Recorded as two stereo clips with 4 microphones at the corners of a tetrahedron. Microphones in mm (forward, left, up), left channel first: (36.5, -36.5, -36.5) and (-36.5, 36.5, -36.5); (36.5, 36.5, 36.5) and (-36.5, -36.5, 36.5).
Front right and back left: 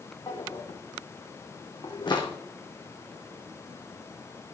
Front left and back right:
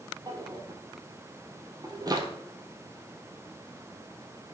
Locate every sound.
0.3 s a drawer: 85° right, 1.8 m